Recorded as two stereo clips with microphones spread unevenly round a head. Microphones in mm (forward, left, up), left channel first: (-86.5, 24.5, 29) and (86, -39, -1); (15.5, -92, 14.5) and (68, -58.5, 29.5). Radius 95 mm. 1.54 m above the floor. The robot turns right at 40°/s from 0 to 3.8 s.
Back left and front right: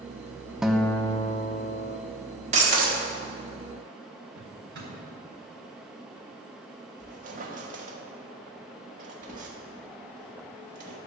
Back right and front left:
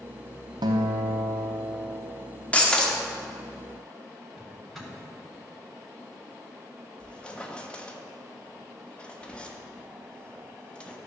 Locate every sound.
0.6 s a guitar: 70° left, 0.5 m; by 2.0 s 125° left, 0.5 m
2.5 s breaking glass: 75° right, 1.5 m; by 3.0 s 55° right, 1.5 m
4.3 s a drawer: 55° right, 3.5 m
7.0 s a squeak: 65° right, 1.2 m